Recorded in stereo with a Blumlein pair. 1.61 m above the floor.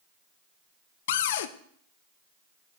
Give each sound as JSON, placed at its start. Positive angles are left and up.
{"t": 1.1, "sound": "a cupboard door", "azimuth_deg": 55, "distance_m": 0.6}